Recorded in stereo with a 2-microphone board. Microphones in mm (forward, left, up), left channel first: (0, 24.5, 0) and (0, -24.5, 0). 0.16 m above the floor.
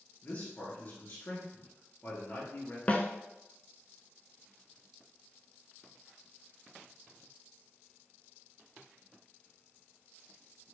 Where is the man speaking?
40° left (ahead or behind), 2 m.